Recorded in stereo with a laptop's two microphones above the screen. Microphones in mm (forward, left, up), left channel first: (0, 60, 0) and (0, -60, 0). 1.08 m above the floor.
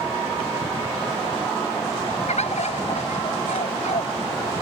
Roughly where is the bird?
Left.